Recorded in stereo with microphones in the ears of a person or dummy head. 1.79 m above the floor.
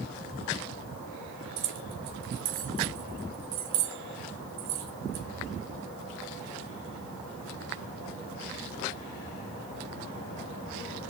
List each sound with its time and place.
1.6 s keys jangling: 70° right (ahead or behind), 2.5 m